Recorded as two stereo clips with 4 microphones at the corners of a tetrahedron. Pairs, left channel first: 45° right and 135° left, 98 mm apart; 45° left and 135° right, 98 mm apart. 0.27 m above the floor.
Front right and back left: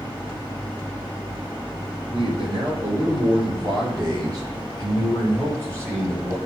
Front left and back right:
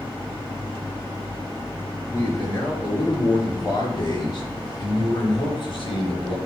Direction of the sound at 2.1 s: 105° left.